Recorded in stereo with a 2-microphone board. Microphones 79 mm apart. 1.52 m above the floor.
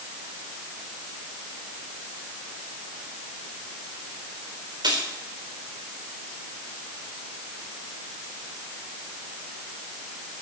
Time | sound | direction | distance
4.8 | keys jangling | 80° right | 4 m